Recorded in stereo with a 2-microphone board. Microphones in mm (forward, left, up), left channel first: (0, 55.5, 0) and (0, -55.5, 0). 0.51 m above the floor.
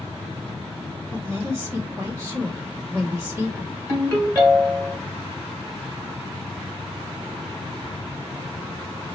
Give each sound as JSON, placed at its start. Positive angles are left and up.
{"t": 1.1, "sound": "a woman speaking", "side_deg": -25, "distance_m": 1.0}
{"t": 3.9, "sound": "a ringtone", "side_deg": -30, "distance_m": 2.0}